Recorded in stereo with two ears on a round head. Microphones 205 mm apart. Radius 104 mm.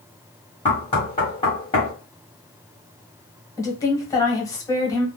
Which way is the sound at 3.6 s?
15° left (ahead or behind).